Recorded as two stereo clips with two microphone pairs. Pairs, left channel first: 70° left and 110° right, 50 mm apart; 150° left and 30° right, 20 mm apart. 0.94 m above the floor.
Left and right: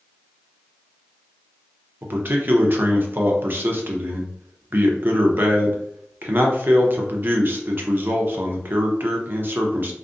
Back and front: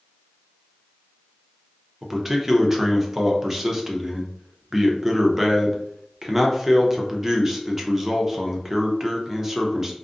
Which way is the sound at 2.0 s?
100° right.